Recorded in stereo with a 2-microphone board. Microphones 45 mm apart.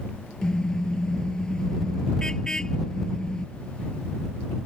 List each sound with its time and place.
0.4 s a car horn: 15° left (ahead or behind)